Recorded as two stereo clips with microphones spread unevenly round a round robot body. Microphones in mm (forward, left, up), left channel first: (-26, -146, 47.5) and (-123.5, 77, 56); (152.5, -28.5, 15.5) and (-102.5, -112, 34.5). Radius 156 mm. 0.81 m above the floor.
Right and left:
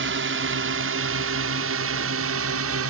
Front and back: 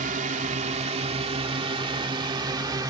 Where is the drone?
135° left; by 2.9 s 120° left.